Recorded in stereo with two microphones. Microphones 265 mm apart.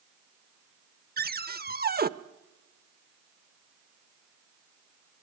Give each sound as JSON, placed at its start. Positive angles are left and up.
{"t": 1.2, "sound": "a cupboard door", "side_deg": -35, "distance_m": 0.6}